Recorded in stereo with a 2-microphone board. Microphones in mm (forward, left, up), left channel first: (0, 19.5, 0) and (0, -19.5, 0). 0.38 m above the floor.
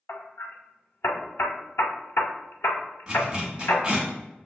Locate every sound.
0.1 s hammering: 80° left, 0.5 m
3.1 s a zipper: 20° right (ahead or behind), 1.2 m